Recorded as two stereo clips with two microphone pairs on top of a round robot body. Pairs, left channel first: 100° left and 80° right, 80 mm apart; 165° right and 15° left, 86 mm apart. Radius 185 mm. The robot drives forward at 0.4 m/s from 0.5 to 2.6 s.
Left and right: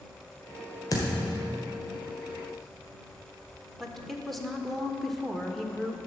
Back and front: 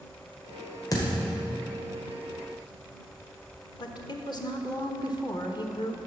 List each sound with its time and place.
0.9 s a thud: 150° left, 1.8 m
3.8 s a woman speaking: 175° right, 1.4 m